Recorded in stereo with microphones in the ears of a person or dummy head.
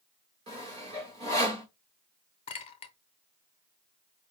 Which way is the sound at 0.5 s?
25° right (ahead or behind).